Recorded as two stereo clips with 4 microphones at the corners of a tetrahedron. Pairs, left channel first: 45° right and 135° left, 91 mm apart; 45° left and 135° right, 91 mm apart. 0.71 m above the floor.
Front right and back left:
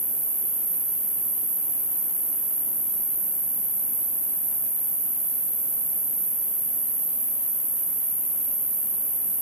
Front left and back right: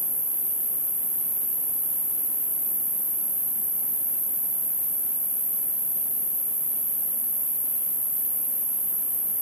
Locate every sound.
0.0 s an insect: 65° right, 0.8 m